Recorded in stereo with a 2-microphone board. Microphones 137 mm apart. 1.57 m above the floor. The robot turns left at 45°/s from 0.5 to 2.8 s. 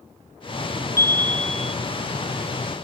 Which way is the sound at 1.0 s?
30° left.